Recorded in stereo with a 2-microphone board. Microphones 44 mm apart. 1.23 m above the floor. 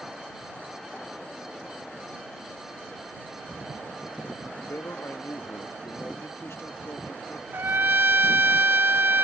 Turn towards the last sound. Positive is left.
turn(degrees=-60)  # may be behind; listen again after turning